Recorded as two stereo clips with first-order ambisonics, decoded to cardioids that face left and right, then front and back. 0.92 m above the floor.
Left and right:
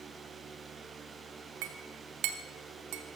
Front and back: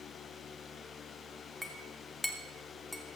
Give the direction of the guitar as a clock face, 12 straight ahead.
I don't hear a guitar.